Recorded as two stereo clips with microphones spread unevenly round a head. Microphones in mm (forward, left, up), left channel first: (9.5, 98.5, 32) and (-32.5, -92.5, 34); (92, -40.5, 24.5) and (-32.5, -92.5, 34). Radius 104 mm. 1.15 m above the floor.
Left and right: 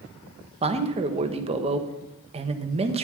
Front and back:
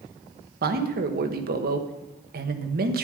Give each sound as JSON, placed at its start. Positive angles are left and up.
{"t": 0.6, "sound": "a man speaking", "azimuth_deg": -165, "distance_m": 1.1}